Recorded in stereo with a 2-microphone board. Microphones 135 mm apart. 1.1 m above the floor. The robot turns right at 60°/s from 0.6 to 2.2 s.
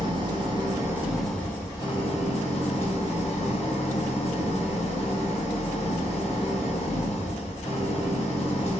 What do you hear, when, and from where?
0.0 s an engine running: 40° right, 0.7 m; by 8.8 s 60° left, 0.7 m